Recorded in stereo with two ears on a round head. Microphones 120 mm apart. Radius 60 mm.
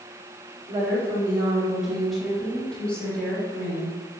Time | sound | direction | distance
0.7 | a woman speaking | 20° right (ahead or behind) | 2 m